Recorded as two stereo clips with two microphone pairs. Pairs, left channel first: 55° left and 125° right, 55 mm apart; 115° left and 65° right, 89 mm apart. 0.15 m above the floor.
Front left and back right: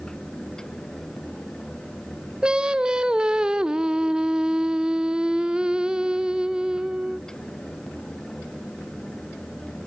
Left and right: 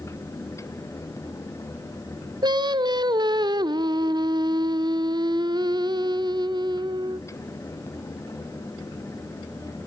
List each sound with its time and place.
2.4 s singing: 55° right, 0.6 m